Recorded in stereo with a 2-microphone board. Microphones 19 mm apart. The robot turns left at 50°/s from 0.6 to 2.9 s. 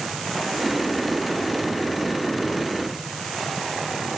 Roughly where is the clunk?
No clunk in this recording.